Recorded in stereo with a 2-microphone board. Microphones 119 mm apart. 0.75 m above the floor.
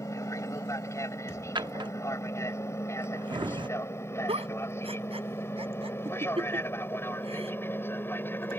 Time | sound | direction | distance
0.0 | an aircraft | 25° left (ahead or behind) | ?
1.6 | a drawer | 45° right (ahead or behind) | ?
4.3 | a giggle | 60° right (ahead or behind) | ?